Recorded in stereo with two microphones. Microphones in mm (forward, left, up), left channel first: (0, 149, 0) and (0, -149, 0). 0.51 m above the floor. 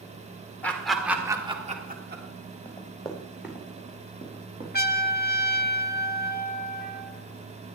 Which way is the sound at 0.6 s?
5° left (ahead or behind).